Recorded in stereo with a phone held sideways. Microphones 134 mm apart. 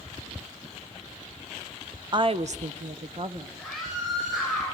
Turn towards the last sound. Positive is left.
turn(degrees=5)  # may be behind; listen again after turning